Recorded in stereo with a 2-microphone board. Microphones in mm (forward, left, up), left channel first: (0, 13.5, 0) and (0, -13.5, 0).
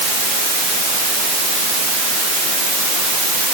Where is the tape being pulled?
No tape being pulled in this recording.